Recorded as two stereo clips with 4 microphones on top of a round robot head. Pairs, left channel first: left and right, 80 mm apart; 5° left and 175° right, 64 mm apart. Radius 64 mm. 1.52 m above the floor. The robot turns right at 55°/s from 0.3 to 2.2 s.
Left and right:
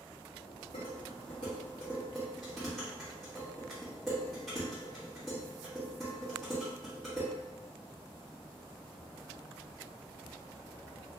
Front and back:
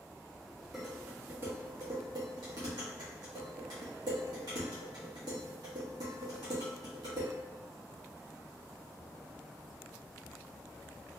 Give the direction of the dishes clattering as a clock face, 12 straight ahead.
9 o'clock.